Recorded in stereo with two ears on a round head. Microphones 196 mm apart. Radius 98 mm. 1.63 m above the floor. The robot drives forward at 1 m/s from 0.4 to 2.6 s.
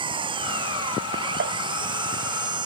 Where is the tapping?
45° right (ahead or behind).